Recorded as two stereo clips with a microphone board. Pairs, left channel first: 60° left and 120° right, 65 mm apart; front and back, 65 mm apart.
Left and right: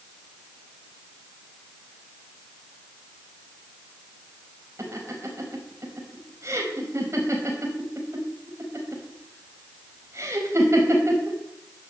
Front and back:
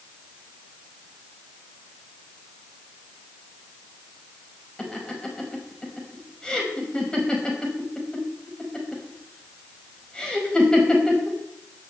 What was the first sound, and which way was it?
Laughter, 80° right.